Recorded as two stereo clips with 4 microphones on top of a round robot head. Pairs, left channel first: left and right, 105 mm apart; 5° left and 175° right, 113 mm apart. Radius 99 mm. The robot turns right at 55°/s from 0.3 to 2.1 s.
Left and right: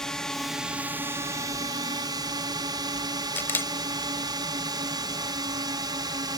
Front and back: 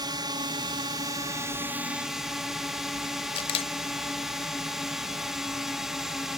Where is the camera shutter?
25° left.